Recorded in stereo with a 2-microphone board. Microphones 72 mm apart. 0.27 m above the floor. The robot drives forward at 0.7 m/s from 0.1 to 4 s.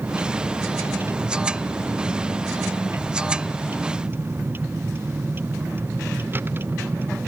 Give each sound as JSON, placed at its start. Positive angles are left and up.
{"t": 0.0, "sound": "a vehicle", "side_deg": -35}